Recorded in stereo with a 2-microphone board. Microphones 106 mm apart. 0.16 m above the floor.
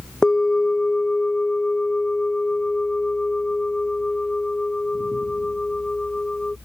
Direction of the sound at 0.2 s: 5° left (ahead or behind).